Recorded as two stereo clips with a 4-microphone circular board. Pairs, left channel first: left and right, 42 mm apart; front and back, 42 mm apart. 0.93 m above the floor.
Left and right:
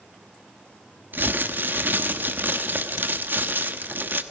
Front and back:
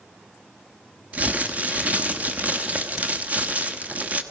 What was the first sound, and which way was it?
Crumpling, 125° right.